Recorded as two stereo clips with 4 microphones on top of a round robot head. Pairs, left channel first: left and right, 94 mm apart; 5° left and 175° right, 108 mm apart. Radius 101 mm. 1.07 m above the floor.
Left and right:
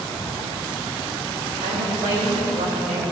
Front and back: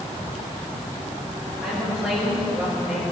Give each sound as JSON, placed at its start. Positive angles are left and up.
{"t": 1.6, "sound": "a woman speaking", "azimuth_deg": -100, "distance_m": 6.5}